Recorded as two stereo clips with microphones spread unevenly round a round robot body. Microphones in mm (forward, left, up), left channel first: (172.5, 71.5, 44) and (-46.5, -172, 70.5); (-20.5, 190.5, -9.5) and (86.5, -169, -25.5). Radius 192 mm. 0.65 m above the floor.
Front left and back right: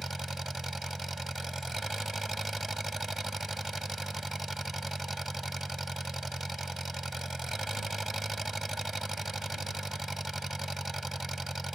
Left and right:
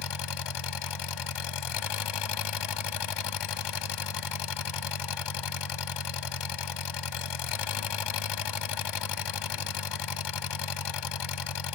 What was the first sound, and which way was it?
An engine running, 140° left.